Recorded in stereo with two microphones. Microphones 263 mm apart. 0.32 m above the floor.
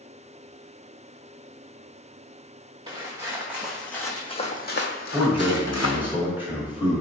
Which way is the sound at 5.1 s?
10° right (ahead or behind).